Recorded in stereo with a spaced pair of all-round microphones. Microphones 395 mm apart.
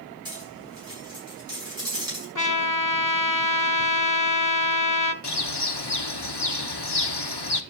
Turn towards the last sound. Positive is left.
turn(degrees=75)  # may be behind; listen again after turning